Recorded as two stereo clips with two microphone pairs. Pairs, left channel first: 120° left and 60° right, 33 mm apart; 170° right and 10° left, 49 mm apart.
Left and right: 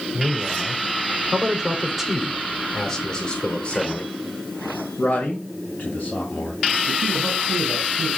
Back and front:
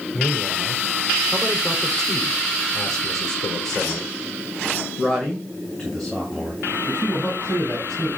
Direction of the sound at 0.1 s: 95° right.